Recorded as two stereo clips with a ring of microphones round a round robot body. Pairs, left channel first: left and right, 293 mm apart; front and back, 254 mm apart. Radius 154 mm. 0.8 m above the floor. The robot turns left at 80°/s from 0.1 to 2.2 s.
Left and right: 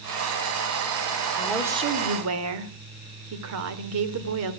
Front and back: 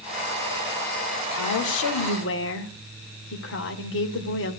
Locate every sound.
1.4 s a woman speaking: 15° left, 2.5 m; by 4.6 s 50° right, 2.5 m